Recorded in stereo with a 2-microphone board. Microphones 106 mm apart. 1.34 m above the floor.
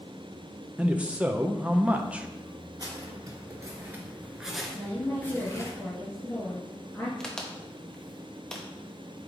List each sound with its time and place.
0.8 s a man speaking: 10° right (ahead or behind), 0.6 m
2.8 s footsteps: 35° right (ahead or behind), 2.5 m; by 5.7 s 30° left (ahead or behind), 1.8 m
4.7 s a woman speaking: 20° left (ahead or behind), 1.5 m
7.2 s a crack: 5° left (ahead or behind), 0.9 m